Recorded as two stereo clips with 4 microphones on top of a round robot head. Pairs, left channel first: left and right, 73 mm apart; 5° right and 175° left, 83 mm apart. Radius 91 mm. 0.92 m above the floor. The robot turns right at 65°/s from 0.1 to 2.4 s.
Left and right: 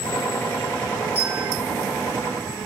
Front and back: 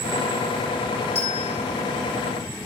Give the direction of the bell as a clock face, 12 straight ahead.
1 o'clock.